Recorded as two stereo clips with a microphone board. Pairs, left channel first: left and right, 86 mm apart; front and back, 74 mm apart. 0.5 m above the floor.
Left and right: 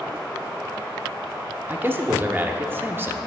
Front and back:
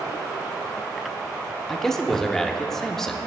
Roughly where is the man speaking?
Right.